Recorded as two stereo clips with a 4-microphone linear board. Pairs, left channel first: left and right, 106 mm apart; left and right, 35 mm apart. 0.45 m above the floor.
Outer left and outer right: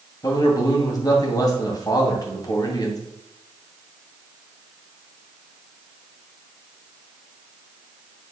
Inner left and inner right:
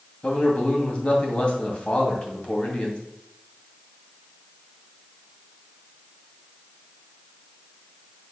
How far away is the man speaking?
About 2.5 m.